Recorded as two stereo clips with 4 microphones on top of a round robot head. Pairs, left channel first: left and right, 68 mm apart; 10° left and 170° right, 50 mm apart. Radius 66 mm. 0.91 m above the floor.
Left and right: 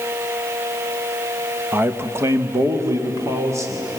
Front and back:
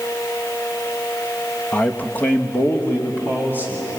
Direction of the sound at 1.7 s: 40° right.